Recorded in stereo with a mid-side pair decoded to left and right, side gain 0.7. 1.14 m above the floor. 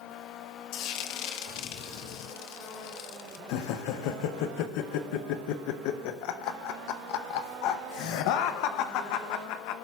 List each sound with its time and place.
0.7 s frying: 70° left, 0.9 m
3.5 s laughter: 70° left, 0.6 m